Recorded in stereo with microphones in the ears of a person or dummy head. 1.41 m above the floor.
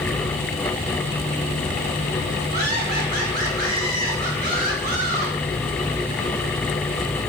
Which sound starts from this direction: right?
Laughter, at 2.5 s.